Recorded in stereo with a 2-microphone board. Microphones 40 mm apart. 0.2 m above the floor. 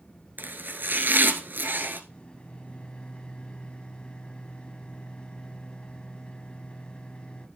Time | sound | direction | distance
0.4 | chopping | 55° right (ahead or behind) | 1.4 m
2.1 | a microwave | 25° left (ahead or behind) | 1.0 m